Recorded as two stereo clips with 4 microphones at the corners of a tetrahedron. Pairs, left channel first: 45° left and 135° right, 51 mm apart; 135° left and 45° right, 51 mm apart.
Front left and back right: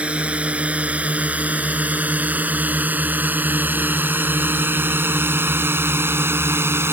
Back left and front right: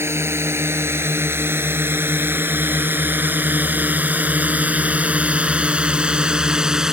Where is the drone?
70° right; by 6.9 s 120° right.